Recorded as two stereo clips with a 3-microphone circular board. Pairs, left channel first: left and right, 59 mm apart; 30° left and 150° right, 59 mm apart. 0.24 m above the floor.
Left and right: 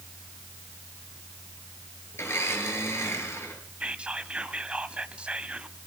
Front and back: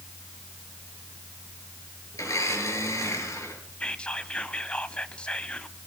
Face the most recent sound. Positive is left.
turn(degrees=-30)